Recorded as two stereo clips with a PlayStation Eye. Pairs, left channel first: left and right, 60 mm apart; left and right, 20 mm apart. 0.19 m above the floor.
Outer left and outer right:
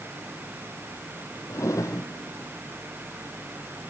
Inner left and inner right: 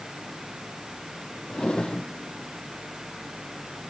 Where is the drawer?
65° left (ahead or behind), 2.0 m.